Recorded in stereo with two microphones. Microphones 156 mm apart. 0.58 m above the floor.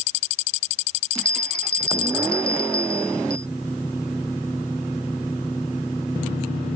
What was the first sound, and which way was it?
A bell, 90° left.